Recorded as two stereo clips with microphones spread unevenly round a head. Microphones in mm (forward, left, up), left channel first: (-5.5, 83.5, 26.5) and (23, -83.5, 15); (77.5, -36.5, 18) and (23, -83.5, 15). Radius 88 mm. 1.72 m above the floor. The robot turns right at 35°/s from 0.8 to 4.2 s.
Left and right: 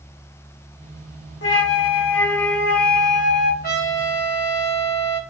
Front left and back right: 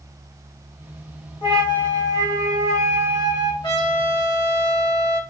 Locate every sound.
1.4 s a flute: 80° left, 1.2 m; by 3.5 s 155° left, 1.2 m
3.6 s a trumpet: 60° left, 2 m; by 5.2 s 80° left, 2 m